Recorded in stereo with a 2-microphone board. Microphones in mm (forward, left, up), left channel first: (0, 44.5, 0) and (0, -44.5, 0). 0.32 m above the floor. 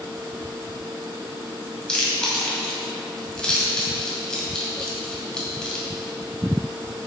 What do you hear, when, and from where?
1.9 s chewing: 10° left (ahead or behind), 2.5 m